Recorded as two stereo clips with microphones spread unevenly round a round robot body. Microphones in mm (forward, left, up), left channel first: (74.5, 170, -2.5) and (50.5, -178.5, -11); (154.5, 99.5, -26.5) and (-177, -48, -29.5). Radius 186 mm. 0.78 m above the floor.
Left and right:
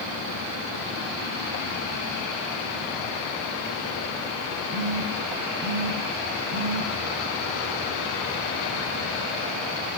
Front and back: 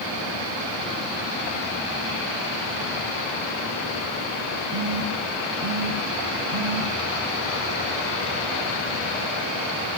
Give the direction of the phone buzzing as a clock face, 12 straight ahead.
4 o'clock.